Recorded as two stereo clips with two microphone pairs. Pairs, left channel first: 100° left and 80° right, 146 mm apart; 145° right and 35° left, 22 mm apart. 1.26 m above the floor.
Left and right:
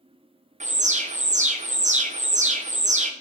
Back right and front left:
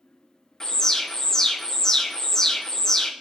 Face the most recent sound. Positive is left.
turn(degrees=-80)